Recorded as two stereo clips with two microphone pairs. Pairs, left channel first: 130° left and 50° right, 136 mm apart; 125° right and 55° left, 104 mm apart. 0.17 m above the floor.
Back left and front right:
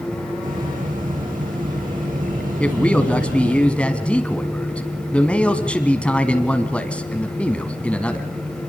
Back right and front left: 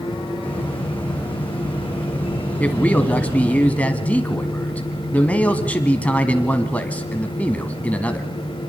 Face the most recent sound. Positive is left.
turn(degrees=-170)